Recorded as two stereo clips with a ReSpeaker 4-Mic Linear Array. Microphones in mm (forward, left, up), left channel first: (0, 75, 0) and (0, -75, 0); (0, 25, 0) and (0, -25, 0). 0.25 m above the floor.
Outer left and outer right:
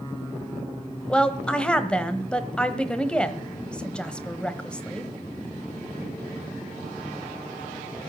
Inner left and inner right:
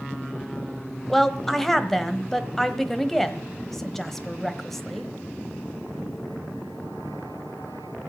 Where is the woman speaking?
5° left (ahead or behind), 1.1 m.